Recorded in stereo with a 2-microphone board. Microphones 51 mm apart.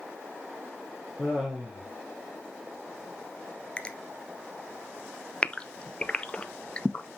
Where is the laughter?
Centre (ahead or behind), 3 m.